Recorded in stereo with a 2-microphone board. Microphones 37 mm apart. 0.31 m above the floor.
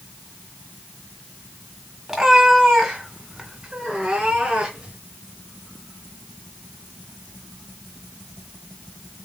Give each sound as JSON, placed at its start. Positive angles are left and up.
{"t": 2.1, "sound": "a cat meowing", "side_deg": -15, "distance_m": 1.2}